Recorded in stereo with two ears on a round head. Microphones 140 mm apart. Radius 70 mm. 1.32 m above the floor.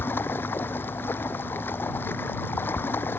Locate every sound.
0.0 s running water: 15° left (ahead or behind)